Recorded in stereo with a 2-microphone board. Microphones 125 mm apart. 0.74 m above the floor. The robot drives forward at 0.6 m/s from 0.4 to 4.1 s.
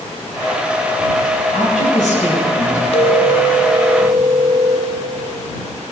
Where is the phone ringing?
50° left (ahead or behind), 0.9 m; by 4.9 s 30° left (ahead or behind), 1.3 m.